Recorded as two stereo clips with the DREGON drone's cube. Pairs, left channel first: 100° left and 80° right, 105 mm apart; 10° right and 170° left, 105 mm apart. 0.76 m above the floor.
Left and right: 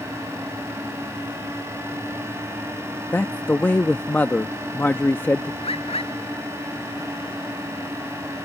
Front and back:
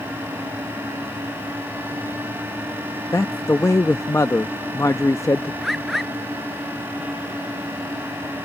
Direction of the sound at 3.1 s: 35° left.